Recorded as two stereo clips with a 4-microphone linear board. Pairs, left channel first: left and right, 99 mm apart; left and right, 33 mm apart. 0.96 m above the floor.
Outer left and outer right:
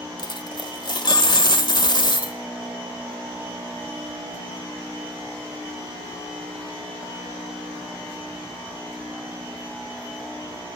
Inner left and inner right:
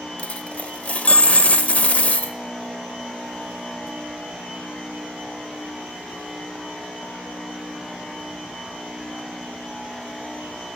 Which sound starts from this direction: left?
A dropped coin, at 0.2 s.